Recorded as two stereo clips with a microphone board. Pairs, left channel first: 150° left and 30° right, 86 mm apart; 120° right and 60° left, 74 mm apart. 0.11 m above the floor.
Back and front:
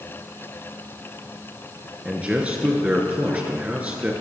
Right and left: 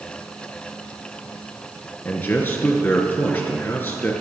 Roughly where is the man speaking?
Right.